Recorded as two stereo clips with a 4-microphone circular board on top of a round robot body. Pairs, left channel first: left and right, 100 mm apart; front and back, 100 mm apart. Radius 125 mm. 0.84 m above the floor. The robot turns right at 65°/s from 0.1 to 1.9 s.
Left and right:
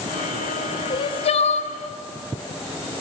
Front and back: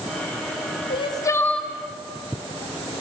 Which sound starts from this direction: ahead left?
Crying, at 0.9 s.